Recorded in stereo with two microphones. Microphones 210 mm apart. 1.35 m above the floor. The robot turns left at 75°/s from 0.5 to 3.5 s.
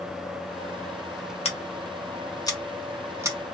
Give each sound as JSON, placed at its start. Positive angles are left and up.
{"t": 1.4, "sound": "scissors", "side_deg": 30, "distance_m": 0.7}